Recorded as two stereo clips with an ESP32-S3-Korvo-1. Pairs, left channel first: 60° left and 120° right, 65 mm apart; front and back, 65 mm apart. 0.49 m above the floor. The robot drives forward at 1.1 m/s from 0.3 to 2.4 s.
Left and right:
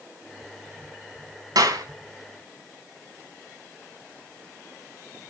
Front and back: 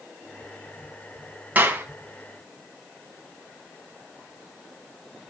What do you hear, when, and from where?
1.6 s a clap: 115° right, 3 m; by 1.9 s 120° right, 3 m